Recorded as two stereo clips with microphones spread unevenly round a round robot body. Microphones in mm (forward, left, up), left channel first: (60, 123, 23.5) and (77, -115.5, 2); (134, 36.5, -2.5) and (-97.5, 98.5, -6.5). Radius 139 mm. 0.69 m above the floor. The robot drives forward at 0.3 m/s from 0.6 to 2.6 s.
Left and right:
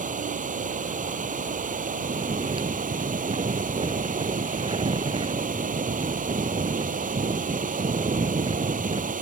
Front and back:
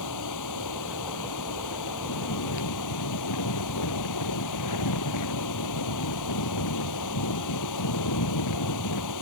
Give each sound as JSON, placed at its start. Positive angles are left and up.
{"t": 0.0, "sound": "running water", "azimuth_deg": -25}
{"t": 2.0, "sound": "snoring", "azimuth_deg": -15}